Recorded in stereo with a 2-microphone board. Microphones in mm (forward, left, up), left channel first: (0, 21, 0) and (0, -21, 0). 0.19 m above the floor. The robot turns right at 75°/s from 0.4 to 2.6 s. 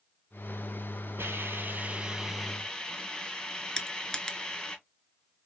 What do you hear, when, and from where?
1.2 s a hiss: 85° right, 1.1 m; by 4.8 s 20° left, 1.1 m
3.8 s crushing: 15° left (ahead or behind), 0.5 m